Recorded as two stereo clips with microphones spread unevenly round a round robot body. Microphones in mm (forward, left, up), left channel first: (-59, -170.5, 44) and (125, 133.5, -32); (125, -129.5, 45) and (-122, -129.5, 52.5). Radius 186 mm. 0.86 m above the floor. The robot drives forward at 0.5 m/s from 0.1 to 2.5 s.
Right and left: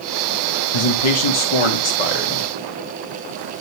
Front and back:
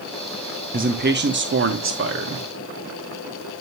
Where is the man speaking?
120° right, 1.0 m; by 2.5 s 150° right, 1.6 m.